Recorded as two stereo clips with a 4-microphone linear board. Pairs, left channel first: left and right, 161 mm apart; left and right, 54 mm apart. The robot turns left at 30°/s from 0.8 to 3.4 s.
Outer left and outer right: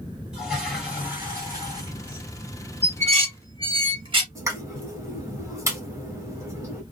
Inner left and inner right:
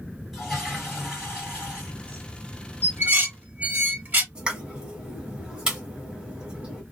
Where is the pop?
20° right (ahead or behind), 1.2 m.